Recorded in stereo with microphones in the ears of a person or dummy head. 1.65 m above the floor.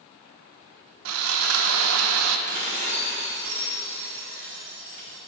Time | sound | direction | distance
1.1 | sawing | 80° right | 0.9 m
2.5 | dishes clattering | 40° right (ahead or behind) | 2 m